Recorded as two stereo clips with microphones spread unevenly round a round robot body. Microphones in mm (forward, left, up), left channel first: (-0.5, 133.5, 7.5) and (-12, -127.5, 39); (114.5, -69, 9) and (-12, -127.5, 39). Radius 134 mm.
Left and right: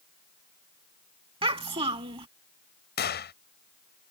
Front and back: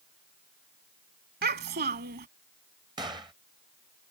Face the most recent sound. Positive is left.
turn(degrees=130)